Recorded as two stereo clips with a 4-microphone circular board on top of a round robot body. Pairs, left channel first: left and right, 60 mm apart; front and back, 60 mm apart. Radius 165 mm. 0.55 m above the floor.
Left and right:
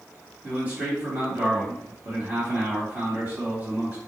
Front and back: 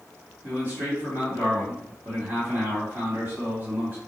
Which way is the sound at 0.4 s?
135° right.